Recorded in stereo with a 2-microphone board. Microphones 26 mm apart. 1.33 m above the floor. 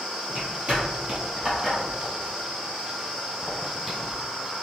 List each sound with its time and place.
0.3 s footsteps: 45° right (ahead or behind), 1.9 m; by 4.1 s 20° right (ahead or behind), 2 m